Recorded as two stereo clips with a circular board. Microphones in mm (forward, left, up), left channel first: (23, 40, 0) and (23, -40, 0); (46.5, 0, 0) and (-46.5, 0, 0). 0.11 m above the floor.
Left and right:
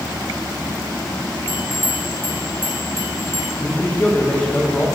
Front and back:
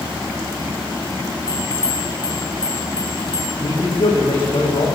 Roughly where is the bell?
Ahead right.